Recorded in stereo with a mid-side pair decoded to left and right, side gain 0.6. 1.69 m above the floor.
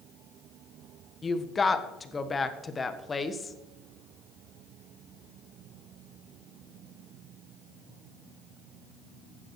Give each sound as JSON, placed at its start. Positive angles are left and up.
{"t": 1.2, "sound": "a woman speaking", "azimuth_deg": 25, "distance_m": 1.4}